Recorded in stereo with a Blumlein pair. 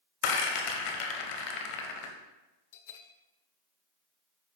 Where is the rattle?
40° left, 0.9 m.